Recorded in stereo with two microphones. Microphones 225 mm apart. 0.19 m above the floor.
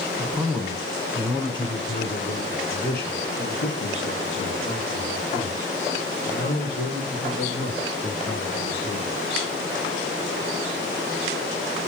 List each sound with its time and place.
0.2 s a man speaking: 15° right (ahead or behind), 1.8 m; by 9.1 s 75° left (ahead or behind), 6.5 m